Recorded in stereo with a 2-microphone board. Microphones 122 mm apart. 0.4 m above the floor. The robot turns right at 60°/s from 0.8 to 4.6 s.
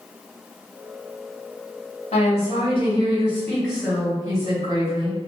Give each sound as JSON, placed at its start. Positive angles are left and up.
{"t": 2.1, "sound": "a woman speaking", "azimuth_deg": 75, "distance_m": 1.9}